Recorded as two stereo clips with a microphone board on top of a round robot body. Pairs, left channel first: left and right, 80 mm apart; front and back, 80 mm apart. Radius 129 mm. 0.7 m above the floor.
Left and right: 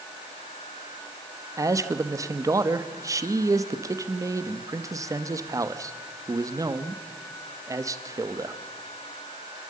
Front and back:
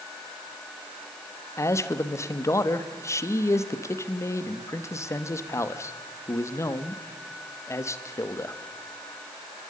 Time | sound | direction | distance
1.6 | a man speaking | 50° right | 1.4 m